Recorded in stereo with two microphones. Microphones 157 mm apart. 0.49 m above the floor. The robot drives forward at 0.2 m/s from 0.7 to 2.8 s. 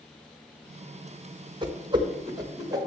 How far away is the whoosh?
About 1.0 m.